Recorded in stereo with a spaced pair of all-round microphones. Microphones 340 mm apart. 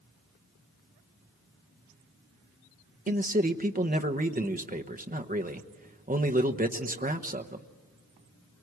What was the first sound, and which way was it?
A man speaking, 25° right (ahead or behind).